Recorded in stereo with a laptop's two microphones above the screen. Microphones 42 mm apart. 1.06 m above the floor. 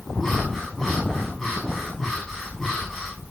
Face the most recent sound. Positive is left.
turn(degrees=15)  # may be behind; listen again after turning